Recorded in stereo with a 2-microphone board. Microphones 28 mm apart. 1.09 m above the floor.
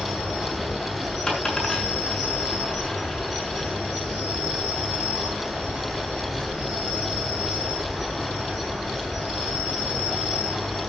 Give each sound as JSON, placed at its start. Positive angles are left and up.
{"t": 0.0, "sound": "an insect", "side_deg": -5, "distance_m": 9.5}
{"t": 1.3, "sound": "a dropped coin", "side_deg": 20, "distance_m": 6.0}